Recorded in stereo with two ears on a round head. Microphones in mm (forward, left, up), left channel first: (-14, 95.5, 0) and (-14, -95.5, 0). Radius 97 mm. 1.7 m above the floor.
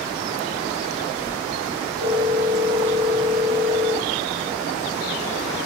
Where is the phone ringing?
55° right (ahead or behind), 3.5 m.